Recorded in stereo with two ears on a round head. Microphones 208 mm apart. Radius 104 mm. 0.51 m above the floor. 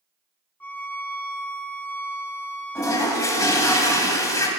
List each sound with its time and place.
0.6 s a violin: 5° left (ahead or behind), 0.5 m
2.8 s a toilet flushing: 15° left (ahead or behind), 1.0 m